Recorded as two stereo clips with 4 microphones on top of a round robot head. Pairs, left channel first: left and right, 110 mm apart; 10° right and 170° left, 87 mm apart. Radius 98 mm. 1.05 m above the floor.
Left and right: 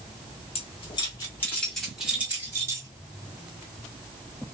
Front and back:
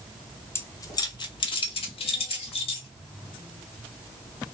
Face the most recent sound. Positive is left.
turn(degrees=-25)